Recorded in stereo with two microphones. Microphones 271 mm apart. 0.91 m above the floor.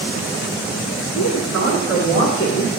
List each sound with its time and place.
1.1 s a woman speaking: 65° left (ahead or behind), 1.6 m; by 2.7 s 30° left (ahead or behind), 0.7 m